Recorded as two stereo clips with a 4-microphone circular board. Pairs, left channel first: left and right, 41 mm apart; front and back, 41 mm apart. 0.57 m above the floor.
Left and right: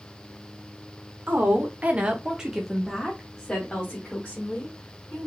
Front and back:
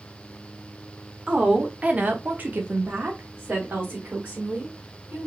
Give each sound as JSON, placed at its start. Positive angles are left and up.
{"t": 1.3, "sound": "a woman speaking", "azimuth_deg": -120, "distance_m": 1.2}